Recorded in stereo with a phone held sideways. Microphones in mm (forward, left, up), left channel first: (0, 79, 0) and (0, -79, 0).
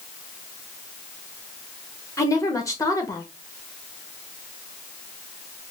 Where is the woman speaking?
20° left (ahead or behind), 1.1 m.